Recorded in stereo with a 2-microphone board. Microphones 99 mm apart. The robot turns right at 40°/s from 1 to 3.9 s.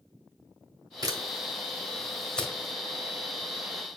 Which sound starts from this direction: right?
A camera shutter, at 1.0 s.